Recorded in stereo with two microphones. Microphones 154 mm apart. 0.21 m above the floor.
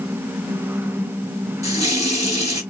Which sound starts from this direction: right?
A running tap, at 1.6 s.